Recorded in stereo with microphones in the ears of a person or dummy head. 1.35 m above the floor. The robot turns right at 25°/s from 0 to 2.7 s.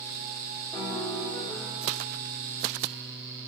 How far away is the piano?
About 1.0 m.